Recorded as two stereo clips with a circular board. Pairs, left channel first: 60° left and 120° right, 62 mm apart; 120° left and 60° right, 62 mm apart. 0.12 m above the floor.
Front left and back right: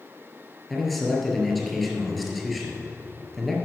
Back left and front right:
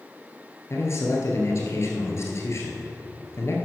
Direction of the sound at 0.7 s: 150° left.